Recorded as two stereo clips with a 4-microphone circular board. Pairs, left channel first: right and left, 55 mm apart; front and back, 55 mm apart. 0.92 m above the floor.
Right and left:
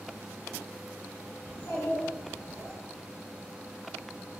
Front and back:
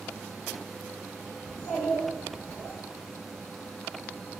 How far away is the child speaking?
About 1.9 m.